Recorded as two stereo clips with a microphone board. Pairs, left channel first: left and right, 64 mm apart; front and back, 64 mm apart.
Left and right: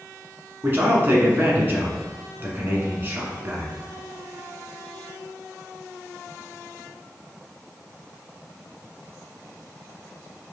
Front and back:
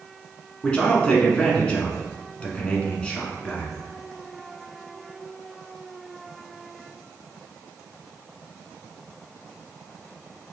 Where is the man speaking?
60° right, 1.3 m.